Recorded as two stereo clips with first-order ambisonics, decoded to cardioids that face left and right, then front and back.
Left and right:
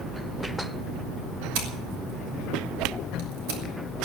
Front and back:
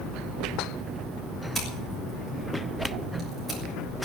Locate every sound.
1.6 s scissors: 95° right, 6 m